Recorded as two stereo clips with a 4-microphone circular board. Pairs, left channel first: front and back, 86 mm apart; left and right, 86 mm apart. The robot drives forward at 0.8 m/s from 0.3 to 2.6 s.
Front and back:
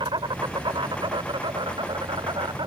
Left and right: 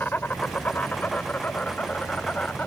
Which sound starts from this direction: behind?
An insect, at 0.0 s.